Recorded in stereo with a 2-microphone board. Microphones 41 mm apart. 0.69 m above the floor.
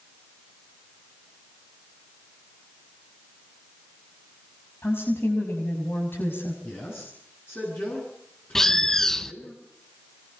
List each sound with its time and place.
4.8 s a woman speaking: 75° left (ahead or behind), 5.5 m; by 6.5 s 65° left (ahead or behind), 5.5 m
6.6 s a man speaking: 65° left (ahead or behind), 8.5 m
8.6 s a bird: 10° left (ahead or behind), 0.6 m